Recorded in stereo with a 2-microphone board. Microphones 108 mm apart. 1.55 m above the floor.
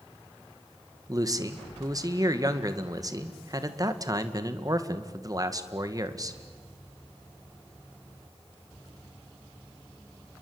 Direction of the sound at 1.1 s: 35° right (ahead or behind).